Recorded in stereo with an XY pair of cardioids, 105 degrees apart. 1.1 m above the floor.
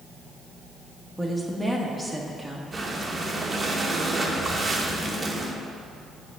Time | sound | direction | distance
1.2 | a woman speaking | 5° right | 1.4 m
2.7 | breathing | 25° right | 1.1 m